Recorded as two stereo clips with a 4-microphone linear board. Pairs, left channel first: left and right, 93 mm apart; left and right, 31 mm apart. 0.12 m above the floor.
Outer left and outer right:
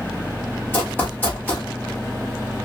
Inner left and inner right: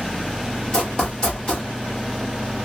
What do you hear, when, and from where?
0.7 s running footsteps: 20° left (ahead or behind), 1.8 m